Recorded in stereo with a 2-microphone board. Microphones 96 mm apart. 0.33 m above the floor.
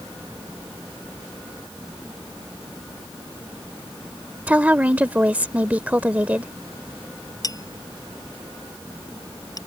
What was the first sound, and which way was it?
A woman speaking, 15° right (ahead or behind).